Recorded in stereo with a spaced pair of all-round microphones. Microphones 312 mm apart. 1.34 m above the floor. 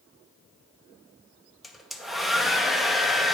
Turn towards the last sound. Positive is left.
turn(degrees=0)  # may be behind; listen again after turning